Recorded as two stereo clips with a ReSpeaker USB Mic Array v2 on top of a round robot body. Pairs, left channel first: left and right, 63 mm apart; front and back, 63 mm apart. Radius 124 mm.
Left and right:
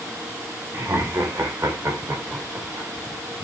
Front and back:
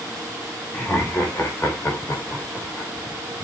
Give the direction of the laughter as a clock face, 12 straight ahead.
2 o'clock.